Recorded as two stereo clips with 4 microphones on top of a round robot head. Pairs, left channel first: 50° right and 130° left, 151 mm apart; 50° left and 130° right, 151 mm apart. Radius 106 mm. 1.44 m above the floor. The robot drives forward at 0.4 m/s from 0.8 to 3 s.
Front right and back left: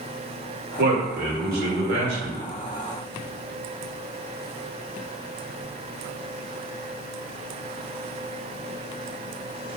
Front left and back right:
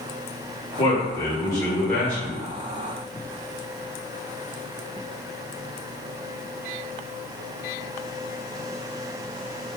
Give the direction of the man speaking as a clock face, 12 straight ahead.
8 o'clock.